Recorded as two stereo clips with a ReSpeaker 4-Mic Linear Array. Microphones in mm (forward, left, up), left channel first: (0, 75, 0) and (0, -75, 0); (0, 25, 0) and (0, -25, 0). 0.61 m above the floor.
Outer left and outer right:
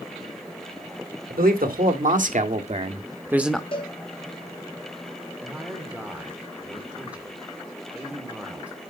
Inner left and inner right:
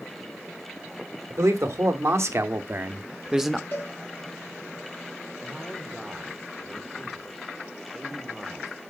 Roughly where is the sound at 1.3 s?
Right.